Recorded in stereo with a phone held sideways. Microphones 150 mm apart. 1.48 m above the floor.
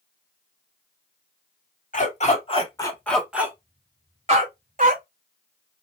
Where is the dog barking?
55° left (ahead or behind), 1.7 m; by 5.0 s 55° right (ahead or behind), 2.5 m.